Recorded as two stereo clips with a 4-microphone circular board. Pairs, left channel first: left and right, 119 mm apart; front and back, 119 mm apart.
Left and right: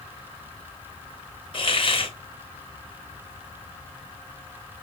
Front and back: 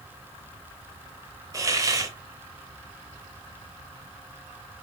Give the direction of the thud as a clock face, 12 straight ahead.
No thud in this recording.